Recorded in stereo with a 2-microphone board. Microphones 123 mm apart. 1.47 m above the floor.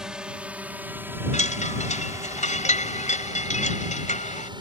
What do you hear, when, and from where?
0.0 s a drone: 5° right (ahead or behind); by 4.6 s 40° right (ahead or behind)
1.3 s a chime: 85° left